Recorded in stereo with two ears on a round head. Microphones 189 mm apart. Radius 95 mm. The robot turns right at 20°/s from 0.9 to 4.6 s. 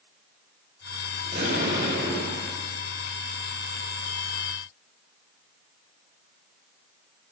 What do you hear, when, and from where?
1.2 s an explosion: 35° right (ahead or behind), 3 m; by 2.5 s 10° right (ahead or behind), 3 m